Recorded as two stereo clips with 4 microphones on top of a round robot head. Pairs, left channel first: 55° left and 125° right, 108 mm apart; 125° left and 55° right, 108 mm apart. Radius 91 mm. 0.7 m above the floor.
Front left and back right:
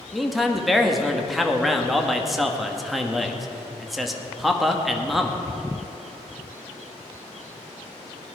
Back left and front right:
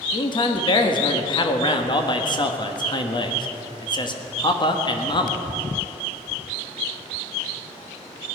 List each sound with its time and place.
0.1 s a man speaking: 145° left, 1.6 m